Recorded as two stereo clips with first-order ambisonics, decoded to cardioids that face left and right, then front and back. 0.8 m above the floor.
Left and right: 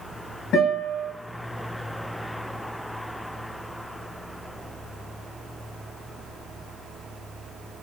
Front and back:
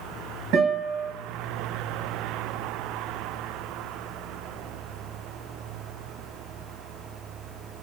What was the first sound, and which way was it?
A guitar, 140° left.